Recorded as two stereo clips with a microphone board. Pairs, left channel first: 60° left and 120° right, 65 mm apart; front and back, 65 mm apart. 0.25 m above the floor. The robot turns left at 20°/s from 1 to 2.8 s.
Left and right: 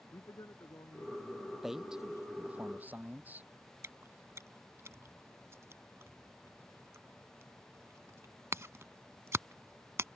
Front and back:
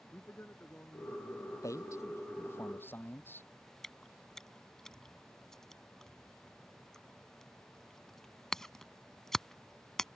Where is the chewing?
80° right.